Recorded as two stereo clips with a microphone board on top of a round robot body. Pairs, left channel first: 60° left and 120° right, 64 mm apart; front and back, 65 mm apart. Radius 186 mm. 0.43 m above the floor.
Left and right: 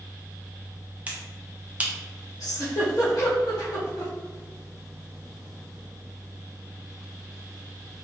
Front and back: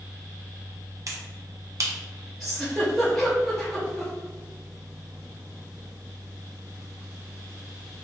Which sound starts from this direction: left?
A giggle, at 2.4 s.